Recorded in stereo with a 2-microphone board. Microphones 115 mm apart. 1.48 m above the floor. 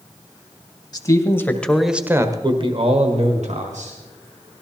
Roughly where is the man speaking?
Left.